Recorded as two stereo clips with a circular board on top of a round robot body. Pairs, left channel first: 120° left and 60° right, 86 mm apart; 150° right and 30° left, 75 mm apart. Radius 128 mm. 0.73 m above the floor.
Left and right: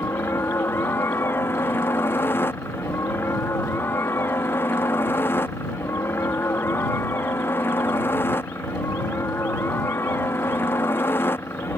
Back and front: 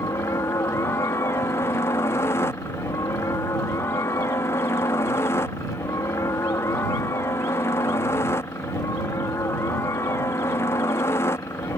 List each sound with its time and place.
0.0 s a helicopter: 175° left